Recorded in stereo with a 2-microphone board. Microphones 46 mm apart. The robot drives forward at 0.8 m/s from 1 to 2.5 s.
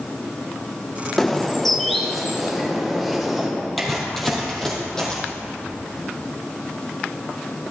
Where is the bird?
10° left (ahead or behind), 0.6 m; by 3.5 s 5° left (ahead or behind), 1.6 m.